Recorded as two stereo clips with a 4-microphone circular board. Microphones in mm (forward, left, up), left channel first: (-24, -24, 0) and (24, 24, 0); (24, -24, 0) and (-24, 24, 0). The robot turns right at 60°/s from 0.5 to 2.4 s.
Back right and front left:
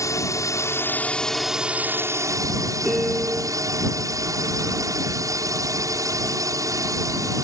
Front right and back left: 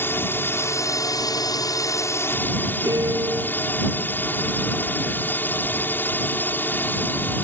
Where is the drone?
100° right; by 7.5 s 15° left.